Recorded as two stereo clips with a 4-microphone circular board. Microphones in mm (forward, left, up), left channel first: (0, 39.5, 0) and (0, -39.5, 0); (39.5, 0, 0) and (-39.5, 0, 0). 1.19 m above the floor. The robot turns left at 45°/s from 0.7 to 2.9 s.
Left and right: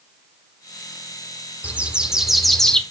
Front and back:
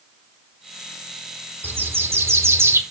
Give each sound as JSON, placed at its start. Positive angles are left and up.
{"t": 1.6, "sound": "a bird", "azimuth_deg": -145, "distance_m": 0.9}